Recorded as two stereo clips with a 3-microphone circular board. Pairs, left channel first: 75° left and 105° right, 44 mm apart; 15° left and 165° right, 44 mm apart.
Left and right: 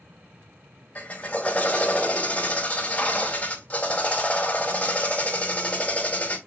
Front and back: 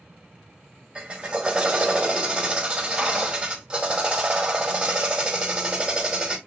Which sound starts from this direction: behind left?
A drill, at 0.9 s.